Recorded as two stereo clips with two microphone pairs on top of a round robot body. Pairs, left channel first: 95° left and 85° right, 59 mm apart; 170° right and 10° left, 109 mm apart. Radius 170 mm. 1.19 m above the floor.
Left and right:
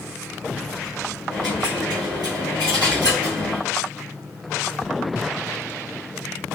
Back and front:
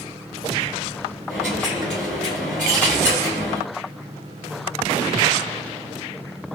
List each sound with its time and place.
1.3 s a dropped coin: 80° right, 2 m